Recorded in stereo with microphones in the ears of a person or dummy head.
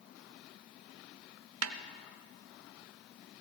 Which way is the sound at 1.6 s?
90° right.